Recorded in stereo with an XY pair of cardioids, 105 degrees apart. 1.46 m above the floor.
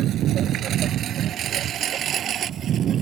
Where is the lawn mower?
70° right; by 3.0 s 55° right.